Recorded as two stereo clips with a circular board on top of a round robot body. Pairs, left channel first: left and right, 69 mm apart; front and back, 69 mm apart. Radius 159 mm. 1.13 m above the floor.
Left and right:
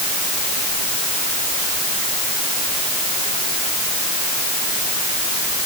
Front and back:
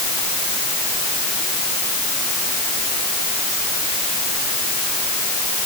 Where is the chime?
No chime in this recording.